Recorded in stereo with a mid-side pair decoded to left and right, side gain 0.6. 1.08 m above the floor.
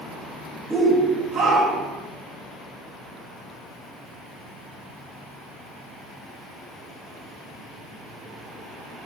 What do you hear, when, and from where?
0.7 s a shout: 10° right, 1.1 m; by 2.0 s 60° right, 1.3 m